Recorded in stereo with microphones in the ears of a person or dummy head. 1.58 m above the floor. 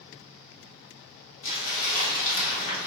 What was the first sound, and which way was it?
Crumpling, 70° left (ahead or behind).